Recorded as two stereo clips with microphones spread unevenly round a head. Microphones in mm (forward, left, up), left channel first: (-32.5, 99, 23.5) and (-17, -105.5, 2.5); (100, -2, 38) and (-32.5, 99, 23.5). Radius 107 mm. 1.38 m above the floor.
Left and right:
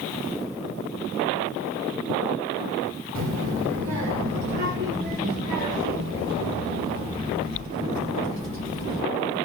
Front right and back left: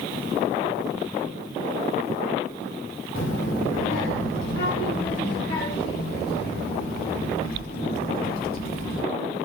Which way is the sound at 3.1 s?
75° right.